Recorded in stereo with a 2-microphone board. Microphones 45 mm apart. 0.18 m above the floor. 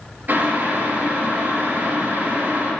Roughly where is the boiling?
Right.